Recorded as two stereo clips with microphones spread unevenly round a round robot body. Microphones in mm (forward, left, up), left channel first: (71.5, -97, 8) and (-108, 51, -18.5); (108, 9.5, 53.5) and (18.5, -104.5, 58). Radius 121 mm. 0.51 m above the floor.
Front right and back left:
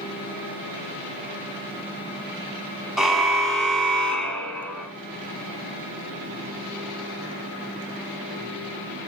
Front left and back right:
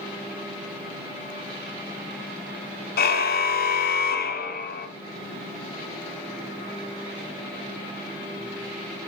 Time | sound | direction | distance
3.0 | a car horn | 50° left | 2 m